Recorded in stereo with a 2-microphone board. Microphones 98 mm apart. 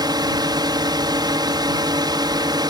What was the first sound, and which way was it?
A drone, 45° right (ahead or behind).